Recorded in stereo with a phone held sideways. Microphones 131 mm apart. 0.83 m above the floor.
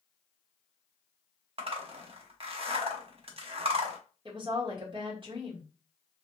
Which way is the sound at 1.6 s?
50° right (ahead or behind).